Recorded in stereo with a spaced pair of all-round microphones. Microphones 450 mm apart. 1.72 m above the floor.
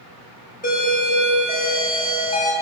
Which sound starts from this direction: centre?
A doorbell, at 0.6 s.